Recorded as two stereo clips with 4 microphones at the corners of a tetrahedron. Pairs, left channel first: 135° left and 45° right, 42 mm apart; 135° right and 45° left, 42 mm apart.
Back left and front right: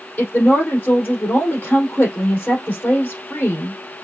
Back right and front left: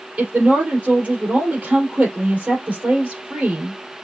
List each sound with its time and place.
0.2 s a woman speaking: 100° left, 3.5 m